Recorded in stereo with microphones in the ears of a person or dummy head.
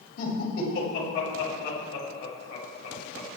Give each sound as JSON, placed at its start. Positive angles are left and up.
{"t": 0.2, "sound": "laughter", "side_deg": 60, "distance_m": 8.0}